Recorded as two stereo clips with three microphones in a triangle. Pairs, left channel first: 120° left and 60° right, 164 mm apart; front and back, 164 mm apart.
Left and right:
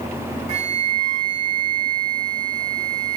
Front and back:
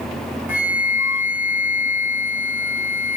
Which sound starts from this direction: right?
A flute, at 0.5 s.